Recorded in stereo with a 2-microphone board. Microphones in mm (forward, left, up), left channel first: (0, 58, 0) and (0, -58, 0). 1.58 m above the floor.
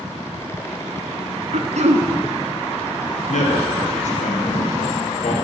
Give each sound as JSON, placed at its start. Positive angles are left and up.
{"t": 1.5, "sound": "throat clearing", "side_deg": -75, "distance_m": 0.5}
{"t": 3.3, "sound": "a man speaking", "side_deg": 80, "distance_m": 1.0}